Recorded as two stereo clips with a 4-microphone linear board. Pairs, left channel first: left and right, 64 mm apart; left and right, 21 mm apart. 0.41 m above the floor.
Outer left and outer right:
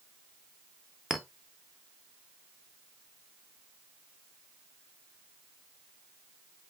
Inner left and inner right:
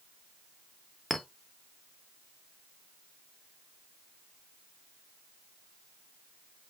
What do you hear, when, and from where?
1.1 s a clink: 5° right (ahead or behind), 0.6 m